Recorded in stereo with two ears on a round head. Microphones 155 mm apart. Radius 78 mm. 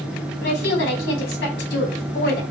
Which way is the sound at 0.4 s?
80° left.